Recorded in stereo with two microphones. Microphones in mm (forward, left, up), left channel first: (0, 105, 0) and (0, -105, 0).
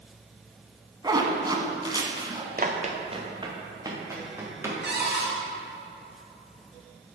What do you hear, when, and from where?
1.0 s a zipper: 20° right (ahead or behind), 1.2 m
2.6 s running footsteps: 40° right (ahead or behind), 1.3 m; by 4.8 s 10° right (ahead or behind), 3.5 m
4.8 s a cupboard door: 60° right (ahead or behind), 2.5 m